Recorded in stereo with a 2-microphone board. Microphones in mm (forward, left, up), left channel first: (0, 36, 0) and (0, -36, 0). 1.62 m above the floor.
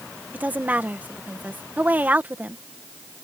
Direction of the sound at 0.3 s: 25° right (ahead or behind).